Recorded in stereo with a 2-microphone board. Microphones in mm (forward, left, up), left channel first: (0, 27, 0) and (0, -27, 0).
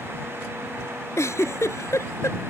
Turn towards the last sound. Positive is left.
turn(degrees=60)  # may be behind; listen again after turning